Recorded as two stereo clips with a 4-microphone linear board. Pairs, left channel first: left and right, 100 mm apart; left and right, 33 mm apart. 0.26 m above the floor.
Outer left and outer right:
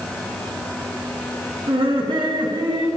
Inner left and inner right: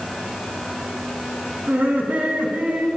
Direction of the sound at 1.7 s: 60° right (ahead or behind).